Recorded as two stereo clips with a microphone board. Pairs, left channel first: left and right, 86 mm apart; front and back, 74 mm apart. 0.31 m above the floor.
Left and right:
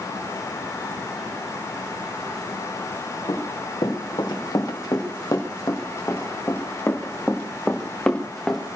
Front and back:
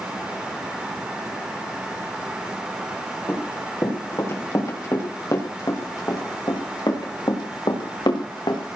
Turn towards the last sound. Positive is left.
turn(degrees=0)